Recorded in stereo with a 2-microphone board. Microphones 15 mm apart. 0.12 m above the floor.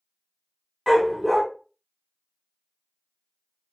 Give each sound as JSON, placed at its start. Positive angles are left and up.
{"t": 0.9, "sound": "a dog barking", "side_deg": 5, "distance_m": 1.3}